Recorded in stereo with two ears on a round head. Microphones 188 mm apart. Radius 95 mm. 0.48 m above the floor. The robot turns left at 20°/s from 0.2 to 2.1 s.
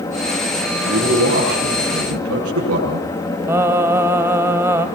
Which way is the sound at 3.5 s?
10° right (ahead or behind).